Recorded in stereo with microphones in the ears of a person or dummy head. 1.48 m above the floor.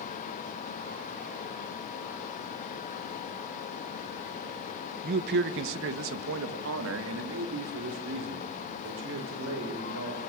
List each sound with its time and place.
5.0 s a man speaking: 55° right (ahead or behind), 1.3 m; by 10.2 s 60° right (ahead or behind), 6 m